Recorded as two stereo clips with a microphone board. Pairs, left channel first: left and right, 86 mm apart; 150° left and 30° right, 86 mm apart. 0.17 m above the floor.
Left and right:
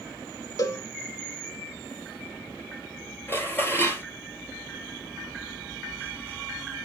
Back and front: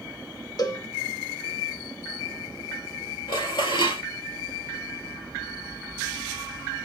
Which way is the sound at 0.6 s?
125° left.